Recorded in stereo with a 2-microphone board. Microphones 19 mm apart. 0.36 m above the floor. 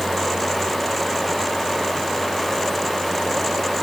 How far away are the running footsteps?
I don't hear running footsteps.